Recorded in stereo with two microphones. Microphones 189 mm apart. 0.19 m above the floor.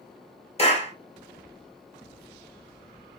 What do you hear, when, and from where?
0.6 s a clap: 35° left (ahead or behind), 2.5 m